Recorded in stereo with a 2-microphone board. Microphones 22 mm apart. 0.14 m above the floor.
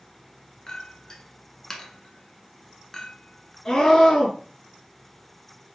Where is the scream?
30° left (ahead or behind), 2 m.